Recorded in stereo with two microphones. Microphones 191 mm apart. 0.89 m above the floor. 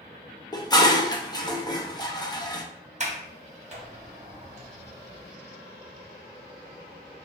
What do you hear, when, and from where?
0.5 s dishes clattering: 20° left (ahead or behind), 0.6 m
3.0 s a sliding door: 40° right (ahead or behind), 0.8 m